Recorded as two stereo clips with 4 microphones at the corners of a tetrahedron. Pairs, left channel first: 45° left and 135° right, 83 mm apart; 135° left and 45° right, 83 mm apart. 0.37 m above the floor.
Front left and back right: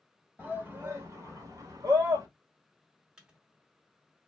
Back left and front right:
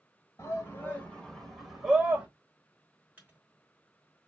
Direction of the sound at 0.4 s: 170° left.